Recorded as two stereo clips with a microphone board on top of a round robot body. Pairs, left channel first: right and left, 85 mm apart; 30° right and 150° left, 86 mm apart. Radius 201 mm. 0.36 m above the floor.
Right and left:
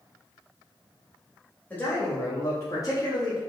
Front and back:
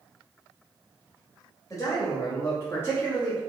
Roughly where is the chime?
I don't hear a chime.